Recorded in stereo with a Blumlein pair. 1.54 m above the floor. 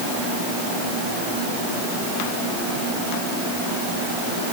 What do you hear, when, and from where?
Only background noise.